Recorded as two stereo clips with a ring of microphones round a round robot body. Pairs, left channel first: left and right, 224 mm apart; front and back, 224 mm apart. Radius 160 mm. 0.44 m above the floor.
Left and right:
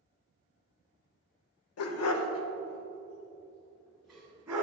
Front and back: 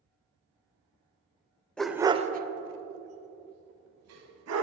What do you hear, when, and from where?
1.8 s a dog barking: 85° left, 0.6 m; by 4.6 s 175° right, 1.5 m